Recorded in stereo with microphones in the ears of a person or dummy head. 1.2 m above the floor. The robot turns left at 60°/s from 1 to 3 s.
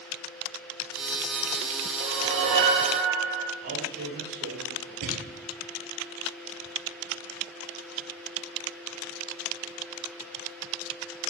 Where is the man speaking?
50° right (ahead or behind), 5 m.